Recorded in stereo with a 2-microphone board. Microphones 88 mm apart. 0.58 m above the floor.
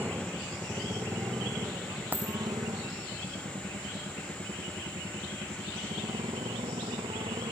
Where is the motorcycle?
20° right (ahead or behind); by 7.5 s 70° right (ahead or behind).